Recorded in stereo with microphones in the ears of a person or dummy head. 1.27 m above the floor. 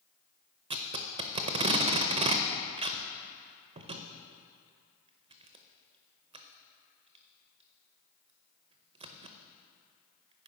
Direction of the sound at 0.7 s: 35° right (ahead or behind).